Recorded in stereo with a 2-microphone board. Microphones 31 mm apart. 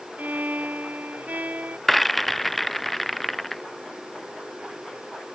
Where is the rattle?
5° left (ahead or behind).